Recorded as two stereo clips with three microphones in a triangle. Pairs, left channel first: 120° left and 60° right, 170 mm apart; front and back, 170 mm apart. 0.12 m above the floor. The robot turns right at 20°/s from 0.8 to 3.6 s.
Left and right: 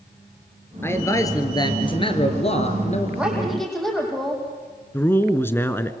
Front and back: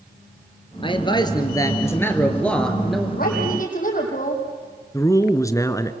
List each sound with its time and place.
0.8 s a man speaking: 45° left, 2.5 m; by 3.1 s 90° left, 2.5 m
3.2 s a woman speaking: 25° left, 5 m; by 4.4 s 30° left, 5 m
4.9 s a man speaking: 55° left, 1.2 m